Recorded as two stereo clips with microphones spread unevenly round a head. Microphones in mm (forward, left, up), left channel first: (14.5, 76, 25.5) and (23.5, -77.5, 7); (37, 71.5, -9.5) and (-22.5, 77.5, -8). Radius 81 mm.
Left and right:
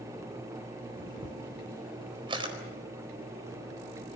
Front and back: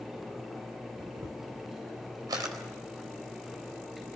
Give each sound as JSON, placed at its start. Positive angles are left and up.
{"t": 1.0, "sound": "a camera shutter", "azimuth_deg": -150, "distance_m": 4.0}